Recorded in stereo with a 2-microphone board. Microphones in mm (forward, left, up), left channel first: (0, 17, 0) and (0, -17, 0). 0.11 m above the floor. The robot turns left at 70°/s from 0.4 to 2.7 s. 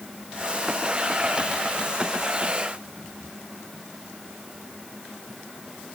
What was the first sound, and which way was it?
Only background noise.